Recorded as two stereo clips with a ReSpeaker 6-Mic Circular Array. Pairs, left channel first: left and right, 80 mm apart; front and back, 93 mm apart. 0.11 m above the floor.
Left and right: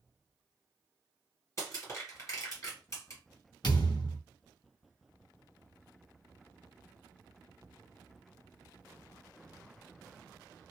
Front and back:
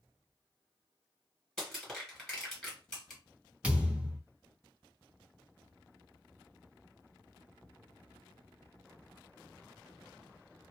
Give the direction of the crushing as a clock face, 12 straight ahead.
9 o'clock.